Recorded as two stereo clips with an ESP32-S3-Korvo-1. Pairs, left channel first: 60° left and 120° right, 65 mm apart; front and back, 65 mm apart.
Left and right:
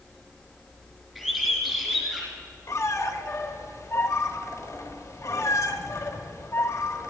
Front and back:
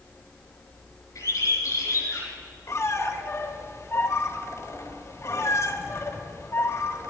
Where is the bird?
35° right, 3 m.